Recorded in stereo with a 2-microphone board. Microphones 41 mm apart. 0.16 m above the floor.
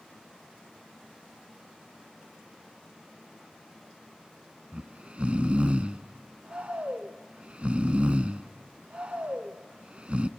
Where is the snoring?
30° right (ahead or behind), 0.6 m.